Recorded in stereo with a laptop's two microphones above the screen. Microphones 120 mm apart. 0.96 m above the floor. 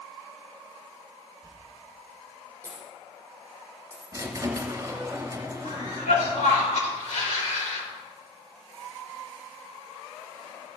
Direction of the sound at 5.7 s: 80° left.